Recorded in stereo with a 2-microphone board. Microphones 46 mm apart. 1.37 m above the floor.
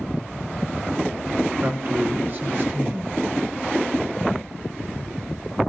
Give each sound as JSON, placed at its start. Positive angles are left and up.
{"t": 1.6, "sound": "a man speaking", "side_deg": -45, "distance_m": 1.6}